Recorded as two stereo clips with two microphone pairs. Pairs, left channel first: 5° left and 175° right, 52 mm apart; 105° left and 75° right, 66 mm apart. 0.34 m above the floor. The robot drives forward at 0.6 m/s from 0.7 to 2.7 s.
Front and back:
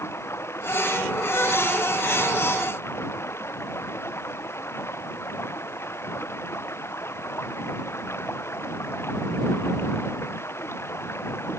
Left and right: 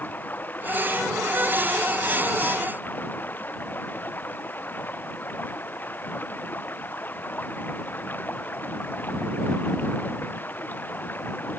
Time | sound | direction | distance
0.0 | running water | 45° left | ?